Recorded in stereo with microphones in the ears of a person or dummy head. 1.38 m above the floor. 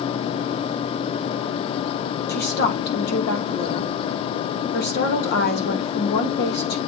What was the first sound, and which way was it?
A woman speaking, 55° left (ahead or behind).